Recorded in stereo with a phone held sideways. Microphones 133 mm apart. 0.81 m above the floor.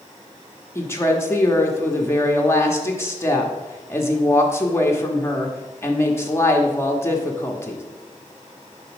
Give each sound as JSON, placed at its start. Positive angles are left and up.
{"t": 0.8, "sound": "a woman speaking", "side_deg": 20, "distance_m": 1.0}